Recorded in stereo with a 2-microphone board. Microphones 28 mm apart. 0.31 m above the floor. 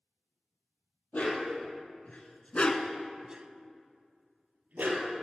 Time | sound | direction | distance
1.1 | a dog barking | 65° left (ahead or behind) | 3 m